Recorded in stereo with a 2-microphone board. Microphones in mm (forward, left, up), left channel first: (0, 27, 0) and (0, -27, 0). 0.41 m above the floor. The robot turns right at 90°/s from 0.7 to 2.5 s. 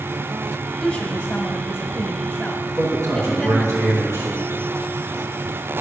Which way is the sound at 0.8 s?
10° left.